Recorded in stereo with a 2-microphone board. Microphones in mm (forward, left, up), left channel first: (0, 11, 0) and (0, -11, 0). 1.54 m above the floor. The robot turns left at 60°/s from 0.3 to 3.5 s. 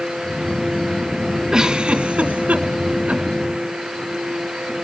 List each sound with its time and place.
1.5 s a giggle: 25° right (ahead or behind), 2 m; by 3.2 s 50° right (ahead or behind), 2 m